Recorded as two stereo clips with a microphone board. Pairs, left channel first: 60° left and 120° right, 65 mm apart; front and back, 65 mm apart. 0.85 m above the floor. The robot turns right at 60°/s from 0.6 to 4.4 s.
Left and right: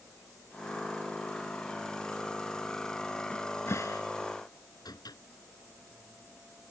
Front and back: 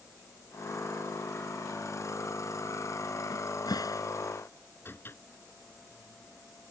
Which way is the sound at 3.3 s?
15° right.